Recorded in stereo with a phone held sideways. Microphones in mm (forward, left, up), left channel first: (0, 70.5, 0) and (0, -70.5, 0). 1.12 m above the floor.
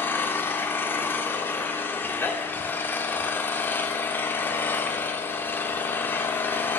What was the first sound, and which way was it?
An engine running, 15° left (ahead or behind).